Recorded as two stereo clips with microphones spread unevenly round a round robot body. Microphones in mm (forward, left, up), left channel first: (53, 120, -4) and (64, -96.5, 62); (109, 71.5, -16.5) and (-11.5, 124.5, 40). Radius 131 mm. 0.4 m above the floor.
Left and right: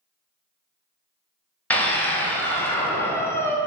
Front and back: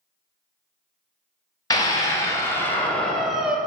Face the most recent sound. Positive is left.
turn(degrees=45)